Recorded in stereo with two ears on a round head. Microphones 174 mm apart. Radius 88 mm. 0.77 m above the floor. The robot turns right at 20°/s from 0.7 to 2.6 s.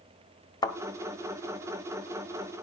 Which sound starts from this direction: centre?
A thud, at 0.6 s.